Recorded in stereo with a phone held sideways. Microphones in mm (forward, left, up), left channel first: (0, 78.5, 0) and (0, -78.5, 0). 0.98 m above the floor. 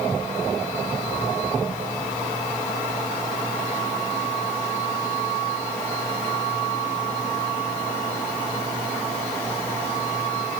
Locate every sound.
Only background noise.